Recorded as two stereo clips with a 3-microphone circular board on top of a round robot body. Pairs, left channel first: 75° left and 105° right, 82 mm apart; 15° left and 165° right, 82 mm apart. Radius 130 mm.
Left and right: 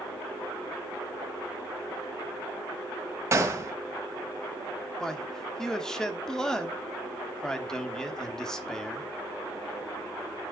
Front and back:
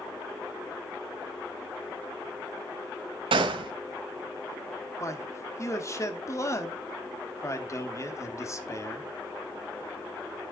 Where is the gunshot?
160° right, 1.8 m.